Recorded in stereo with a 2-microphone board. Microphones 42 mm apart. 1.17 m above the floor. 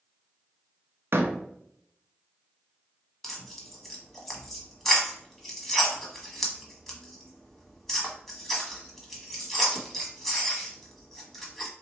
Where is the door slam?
65° right (ahead or behind), 0.7 m.